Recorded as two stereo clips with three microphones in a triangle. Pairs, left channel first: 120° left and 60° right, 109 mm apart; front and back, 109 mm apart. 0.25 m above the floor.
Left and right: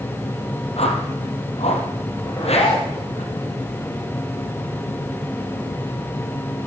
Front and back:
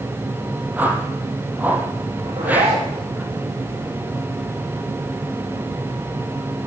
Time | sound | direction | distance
0.8 | a whoosh | 105° left | 2 m
2.2 | a zipper | 165° left | 7.5 m